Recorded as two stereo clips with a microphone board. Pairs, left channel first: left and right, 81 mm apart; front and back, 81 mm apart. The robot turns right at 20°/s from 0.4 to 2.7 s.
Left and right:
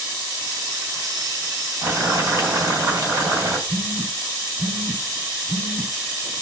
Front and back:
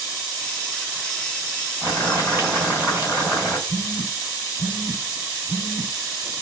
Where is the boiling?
140° right, 1.7 m; by 3.6 s 125° right, 1.7 m.